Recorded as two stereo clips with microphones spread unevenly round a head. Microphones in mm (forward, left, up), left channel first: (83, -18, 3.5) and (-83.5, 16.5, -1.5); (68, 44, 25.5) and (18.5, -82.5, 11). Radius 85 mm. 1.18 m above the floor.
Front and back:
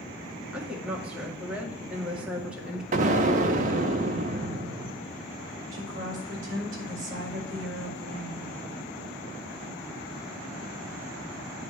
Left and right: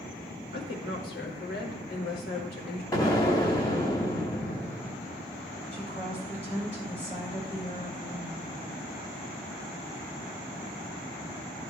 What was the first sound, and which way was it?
A woman speaking, 85° left.